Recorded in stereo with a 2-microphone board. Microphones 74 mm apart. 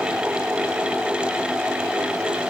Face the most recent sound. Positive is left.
No sound to turn to.